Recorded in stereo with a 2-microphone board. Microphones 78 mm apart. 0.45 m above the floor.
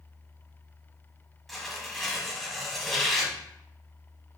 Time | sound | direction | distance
1.5 | tearing paper | centre (ahead or behind) | 0.8 m